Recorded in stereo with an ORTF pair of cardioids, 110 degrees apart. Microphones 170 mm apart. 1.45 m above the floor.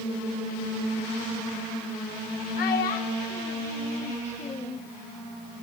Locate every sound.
2.6 s a child speaking: 65° left, 1.7 m; by 4.8 s 40° left, 0.6 m